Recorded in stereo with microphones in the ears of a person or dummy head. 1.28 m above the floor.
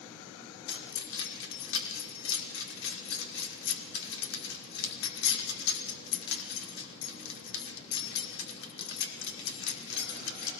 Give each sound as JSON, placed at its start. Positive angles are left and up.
{"t": 0.7, "sound": "keys jangling", "side_deg": 75, "distance_m": 2.0}